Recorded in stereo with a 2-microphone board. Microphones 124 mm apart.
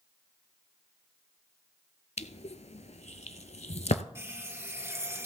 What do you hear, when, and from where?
2.2 s crushing: 70° left (ahead or behind), 0.6 m
4.2 s a running tap: 25° right (ahead or behind), 1.5 m